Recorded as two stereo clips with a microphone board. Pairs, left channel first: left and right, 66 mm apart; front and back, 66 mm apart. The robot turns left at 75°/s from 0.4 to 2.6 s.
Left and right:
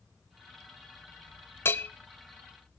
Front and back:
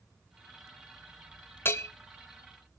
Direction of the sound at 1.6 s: 45° left.